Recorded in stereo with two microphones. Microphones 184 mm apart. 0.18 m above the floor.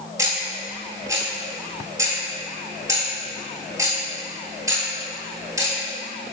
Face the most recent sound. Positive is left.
turn(degrees=-20)  # may be behind; listen again after turning